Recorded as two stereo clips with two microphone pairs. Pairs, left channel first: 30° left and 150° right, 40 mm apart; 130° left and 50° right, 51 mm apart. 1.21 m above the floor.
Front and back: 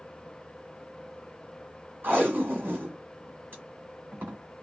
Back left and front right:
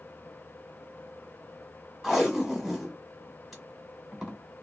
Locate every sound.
2.0 s tape being pulled: 130° right, 1.4 m